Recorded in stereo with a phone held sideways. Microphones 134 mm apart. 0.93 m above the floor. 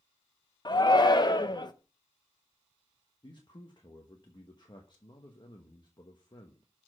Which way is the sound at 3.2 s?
35° left (ahead or behind).